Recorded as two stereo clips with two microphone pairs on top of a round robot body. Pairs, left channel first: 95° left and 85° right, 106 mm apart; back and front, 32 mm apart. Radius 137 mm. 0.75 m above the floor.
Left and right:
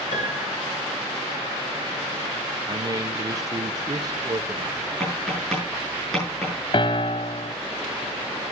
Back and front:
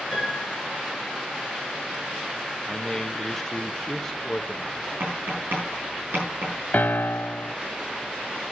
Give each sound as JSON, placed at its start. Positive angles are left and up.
{"t": 0.1, "sound": "a piano", "azimuth_deg": 80, "distance_m": 5.5}
{"t": 2.7, "sound": "a man speaking", "azimuth_deg": -120, "distance_m": 1.1}
{"t": 5.0, "sound": "tapping", "azimuth_deg": 5, "distance_m": 6.5}
{"t": 6.7, "sound": "a piano", "azimuth_deg": 140, "distance_m": 0.6}